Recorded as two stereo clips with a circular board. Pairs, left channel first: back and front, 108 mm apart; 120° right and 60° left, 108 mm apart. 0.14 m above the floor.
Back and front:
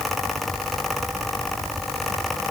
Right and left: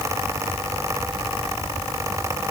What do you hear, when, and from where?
Only background noise.